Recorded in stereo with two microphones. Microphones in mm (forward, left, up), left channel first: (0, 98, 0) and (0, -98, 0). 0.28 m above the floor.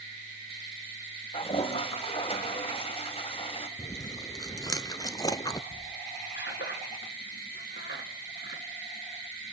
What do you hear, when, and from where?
1.3 s a toilet flushing: 30° left (ahead or behind), 1.6 m
3.8 s chewing: 20° left (ahead or behind), 0.8 m
5.7 s a squeak: 70° left (ahead or behind), 1.9 m